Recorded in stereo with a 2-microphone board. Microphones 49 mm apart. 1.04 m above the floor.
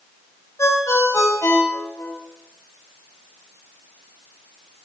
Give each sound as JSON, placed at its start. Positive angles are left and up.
{"t": 0.6, "sound": "a ringtone", "side_deg": 85, "distance_m": 3.5}